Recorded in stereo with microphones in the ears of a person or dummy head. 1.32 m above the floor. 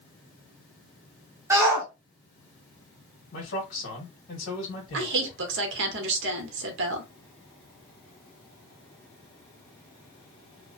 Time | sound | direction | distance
1.5 | a shout | 15° right (ahead or behind) | 0.9 m
3.3 | a man speaking | 55° left (ahead or behind) | 1.4 m
4.9 | a woman speaking | 70° right (ahead or behind) | 0.9 m